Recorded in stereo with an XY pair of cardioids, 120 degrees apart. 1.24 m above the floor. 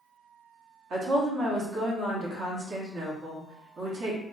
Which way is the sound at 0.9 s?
55° right.